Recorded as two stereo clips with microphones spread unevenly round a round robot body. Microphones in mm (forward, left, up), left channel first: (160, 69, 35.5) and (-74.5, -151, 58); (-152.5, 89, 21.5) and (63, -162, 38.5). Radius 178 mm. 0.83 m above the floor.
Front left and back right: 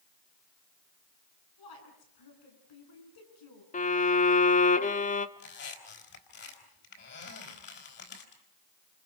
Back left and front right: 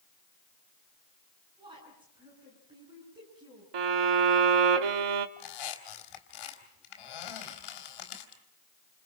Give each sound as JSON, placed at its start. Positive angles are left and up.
{"t": 1.6, "sound": "a woman speaking", "azimuth_deg": 30, "distance_m": 8.5}
{"t": 3.7, "sound": "a violin", "azimuth_deg": -25, "distance_m": 1.1}
{"t": 5.4, "sound": "a squeak", "azimuth_deg": 105, "distance_m": 4.0}